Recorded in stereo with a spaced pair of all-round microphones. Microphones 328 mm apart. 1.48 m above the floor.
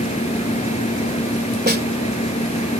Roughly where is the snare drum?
Right.